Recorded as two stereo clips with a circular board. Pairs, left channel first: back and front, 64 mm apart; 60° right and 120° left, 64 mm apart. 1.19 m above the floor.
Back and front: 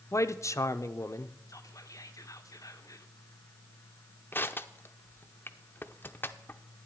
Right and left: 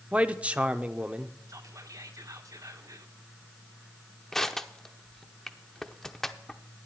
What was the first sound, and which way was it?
A man speaking, 175° right.